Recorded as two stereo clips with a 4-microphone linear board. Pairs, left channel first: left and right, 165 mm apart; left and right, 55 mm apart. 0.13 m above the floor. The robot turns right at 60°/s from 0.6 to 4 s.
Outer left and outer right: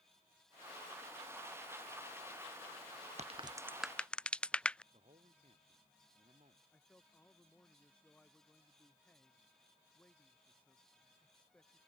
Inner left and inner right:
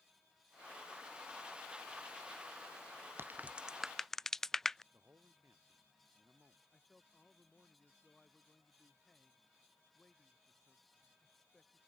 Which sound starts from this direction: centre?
A man speaking, at 6.7 s.